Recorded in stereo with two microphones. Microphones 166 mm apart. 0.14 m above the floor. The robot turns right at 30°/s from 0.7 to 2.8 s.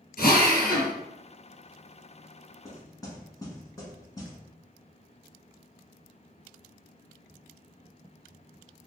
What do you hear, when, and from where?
0.2 s a drill: 65° left (ahead or behind), 1.4 m
2.6 s knocking: 20° left (ahead or behind), 1.1 m; by 4.4 s 25° left (ahead or behind), 1.1 m